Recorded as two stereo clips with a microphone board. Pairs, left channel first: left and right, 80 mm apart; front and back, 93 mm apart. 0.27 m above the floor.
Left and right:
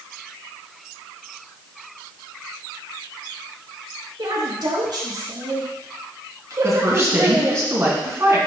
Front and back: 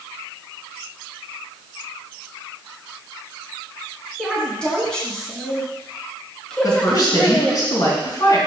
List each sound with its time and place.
4.2 s a woman speaking: 80° right, 3 m; by 7.6 s 75° right, 1.6 m
6.6 s a woman speaking: 40° right, 2.5 m